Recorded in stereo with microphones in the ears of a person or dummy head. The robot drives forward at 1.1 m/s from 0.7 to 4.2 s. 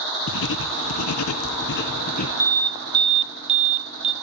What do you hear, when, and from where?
0.3 s writing: 65° left (ahead or behind), 1.2 m; by 2.3 s 40° left (ahead or behind), 1.7 m
2.4 s an alarm: 15° right (ahead or behind), 1.6 m; by 4.1 s 25° right (ahead or behind), 1.0 m